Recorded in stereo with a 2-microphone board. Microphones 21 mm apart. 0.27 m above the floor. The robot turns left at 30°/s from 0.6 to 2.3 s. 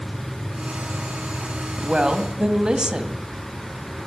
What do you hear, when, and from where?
1.8 s a woman speaking: 45° right (ahead or behind), 1.4 m; by 3.2 s 40° right (ahead or behind), 1.4 m